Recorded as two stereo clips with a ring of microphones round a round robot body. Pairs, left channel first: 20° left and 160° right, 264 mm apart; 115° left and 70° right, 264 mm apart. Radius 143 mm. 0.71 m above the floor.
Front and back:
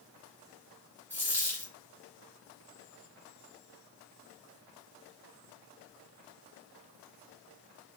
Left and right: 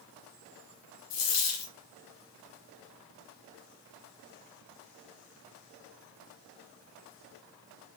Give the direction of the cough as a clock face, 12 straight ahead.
I don't hear a cough.